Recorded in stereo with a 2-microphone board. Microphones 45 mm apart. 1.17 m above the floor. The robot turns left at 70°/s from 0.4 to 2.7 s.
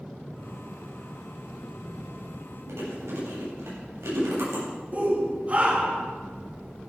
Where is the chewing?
85° right, 8.5 m.